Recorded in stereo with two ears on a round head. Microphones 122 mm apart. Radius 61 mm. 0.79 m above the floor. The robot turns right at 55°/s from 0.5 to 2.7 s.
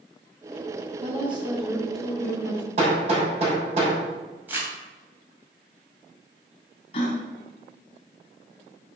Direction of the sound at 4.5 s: 15° right (ahead or behind).